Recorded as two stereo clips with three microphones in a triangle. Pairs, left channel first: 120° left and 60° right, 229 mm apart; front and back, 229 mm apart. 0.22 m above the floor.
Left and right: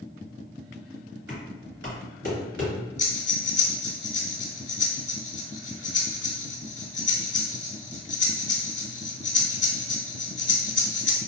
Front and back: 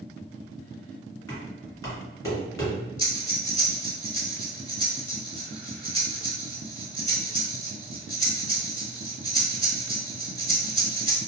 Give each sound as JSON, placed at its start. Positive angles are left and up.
{"t": 1.3, "sound": "knocking", "azimuth_deg": -75, "distance_m": 1.9}
{"t": 3.0, "sound": "breathing", "azimuth_deg": 115, "distance_m": 0.8}